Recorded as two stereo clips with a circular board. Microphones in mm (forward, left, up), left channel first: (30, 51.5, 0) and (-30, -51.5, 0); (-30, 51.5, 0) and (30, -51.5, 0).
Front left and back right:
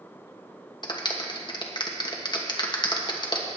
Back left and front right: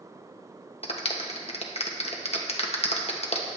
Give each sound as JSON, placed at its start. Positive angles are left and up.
{"t": 0.8, "sound": "a clap", "azimuth_deg": 105, "distance_m": 1.2}